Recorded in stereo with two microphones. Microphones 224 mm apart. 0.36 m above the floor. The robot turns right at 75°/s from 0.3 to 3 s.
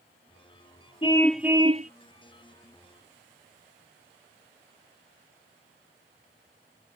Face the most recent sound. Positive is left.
turn(degrees=-55)